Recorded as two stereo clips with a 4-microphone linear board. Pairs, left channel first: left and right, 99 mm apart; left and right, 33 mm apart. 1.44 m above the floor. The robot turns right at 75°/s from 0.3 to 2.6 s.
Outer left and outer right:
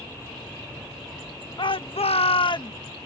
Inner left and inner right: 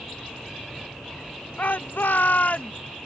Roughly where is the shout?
Ahead left.